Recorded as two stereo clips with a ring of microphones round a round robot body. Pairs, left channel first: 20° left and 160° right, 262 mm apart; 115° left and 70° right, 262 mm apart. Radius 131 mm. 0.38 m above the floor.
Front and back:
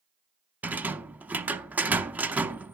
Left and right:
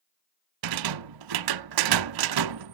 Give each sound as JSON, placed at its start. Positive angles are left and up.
{"t": 0.6, "sound": "a rattle", "azimuth_deg": -75, "distance_m": 0.6}